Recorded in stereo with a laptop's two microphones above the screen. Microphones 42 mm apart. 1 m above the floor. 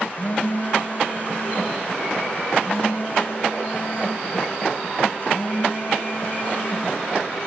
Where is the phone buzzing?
40° left (ahead or behind), 0.8 m.